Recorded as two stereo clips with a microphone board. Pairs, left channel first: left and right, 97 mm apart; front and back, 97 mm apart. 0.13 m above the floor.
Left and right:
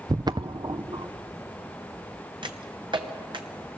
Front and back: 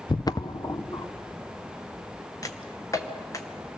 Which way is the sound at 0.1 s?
45° right.